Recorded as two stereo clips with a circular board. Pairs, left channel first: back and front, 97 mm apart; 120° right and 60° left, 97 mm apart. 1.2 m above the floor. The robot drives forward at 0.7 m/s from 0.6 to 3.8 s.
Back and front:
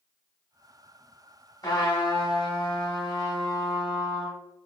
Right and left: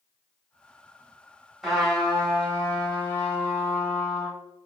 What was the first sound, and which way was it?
A trumpet, 150° left.